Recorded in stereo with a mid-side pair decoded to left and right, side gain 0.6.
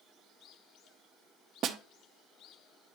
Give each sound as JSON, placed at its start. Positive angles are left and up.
{"t": 1.6, "sound": "a snare drum", "azimuth_deg": -55, "distance_m": 0.7}